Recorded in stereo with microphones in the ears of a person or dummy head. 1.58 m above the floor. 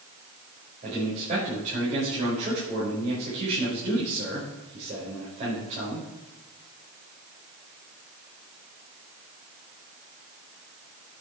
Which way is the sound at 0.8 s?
40° right (ahead or behind).